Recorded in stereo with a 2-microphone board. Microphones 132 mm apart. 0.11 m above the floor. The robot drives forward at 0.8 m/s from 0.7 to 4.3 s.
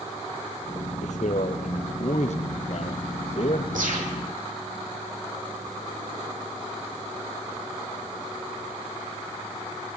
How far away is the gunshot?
About 5.5 m.